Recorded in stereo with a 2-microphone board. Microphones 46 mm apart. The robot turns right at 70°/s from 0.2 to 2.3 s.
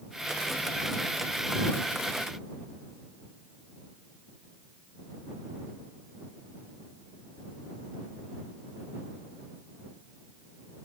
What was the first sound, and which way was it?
Only background noise.